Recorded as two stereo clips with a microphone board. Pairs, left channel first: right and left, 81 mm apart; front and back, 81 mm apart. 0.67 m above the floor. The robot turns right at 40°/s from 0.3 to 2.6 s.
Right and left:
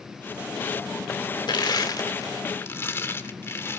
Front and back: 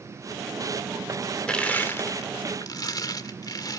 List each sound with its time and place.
1.5 s crushing: 80° right, 1.8 m; by 3.8 s 35° right, 1.8 m